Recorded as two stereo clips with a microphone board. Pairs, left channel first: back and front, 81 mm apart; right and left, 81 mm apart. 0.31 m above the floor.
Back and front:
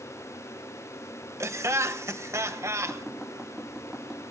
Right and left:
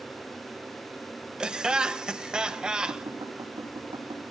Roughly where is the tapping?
Left.